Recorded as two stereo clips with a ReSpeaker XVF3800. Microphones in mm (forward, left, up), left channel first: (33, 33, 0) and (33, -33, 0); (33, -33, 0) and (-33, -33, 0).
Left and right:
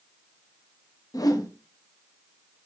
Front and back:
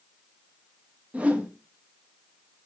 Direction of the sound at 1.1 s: 110° left.